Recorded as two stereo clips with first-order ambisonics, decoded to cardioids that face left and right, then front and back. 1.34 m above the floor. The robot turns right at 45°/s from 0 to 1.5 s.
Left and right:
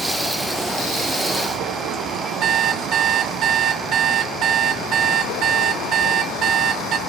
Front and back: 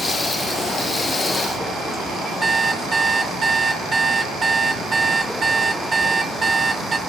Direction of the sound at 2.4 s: 115° right.